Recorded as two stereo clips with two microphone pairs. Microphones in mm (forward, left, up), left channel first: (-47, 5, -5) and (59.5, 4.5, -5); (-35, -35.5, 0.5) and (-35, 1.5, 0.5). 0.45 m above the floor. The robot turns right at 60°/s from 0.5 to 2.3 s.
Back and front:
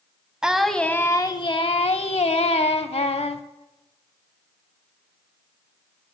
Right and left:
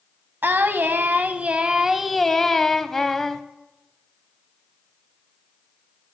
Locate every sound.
0.4 s singing: 85° left, 0.5 m; by 3.4 s 170° right, 0.5 m